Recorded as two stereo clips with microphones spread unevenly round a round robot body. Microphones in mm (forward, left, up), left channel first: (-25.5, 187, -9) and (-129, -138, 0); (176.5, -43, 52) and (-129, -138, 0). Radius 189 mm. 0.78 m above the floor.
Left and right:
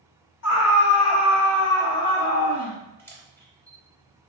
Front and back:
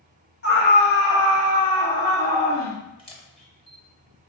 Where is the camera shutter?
10° right, 0.6 m.